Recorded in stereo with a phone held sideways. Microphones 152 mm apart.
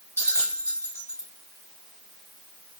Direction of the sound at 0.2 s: 15° left (ahead or behind).